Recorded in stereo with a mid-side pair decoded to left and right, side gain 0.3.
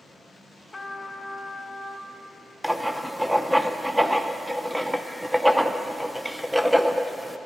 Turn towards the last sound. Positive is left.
turn(degrees=-10)